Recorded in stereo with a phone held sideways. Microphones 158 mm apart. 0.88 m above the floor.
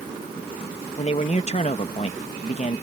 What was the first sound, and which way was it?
A man speaking, 40° left (ahead or behind).